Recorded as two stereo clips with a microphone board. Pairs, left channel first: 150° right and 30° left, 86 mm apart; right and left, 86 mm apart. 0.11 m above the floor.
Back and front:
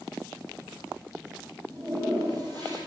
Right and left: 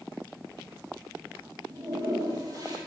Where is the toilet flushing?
55° left, 2.5 m.